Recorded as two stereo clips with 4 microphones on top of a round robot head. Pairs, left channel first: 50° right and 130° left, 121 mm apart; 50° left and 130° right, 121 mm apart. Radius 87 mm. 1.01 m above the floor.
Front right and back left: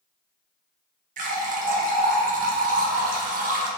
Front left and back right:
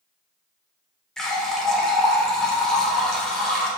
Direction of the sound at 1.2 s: 140° left.